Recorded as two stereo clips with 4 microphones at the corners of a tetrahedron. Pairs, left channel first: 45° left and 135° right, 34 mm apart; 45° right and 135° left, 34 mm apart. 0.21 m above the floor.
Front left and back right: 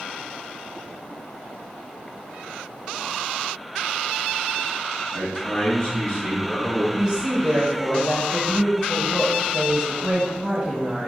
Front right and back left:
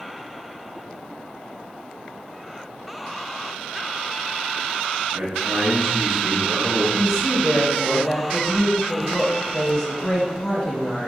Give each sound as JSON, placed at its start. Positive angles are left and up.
{"t": 5.1, "sound": "a man speaking", "azimuth_deg": 130, "distance_m": 2.0}
{"t": 6.9, "sound": "a woman speaking", "azimuth_deg": -120, "distance_m": 1.4}